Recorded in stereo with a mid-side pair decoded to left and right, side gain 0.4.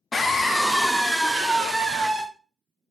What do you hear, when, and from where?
0.1 s a scream: 40° left, 0.9 m; by 2.2 s 35° right, 1.6 m